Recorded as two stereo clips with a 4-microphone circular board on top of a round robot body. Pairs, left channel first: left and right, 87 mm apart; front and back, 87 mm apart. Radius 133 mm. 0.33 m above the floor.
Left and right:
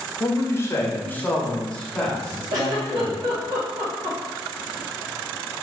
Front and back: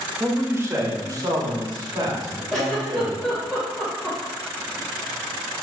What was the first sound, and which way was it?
A man speaking, 120° left.